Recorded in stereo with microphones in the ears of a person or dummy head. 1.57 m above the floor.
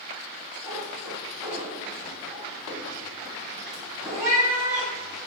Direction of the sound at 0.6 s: 15° right (ahead or behind).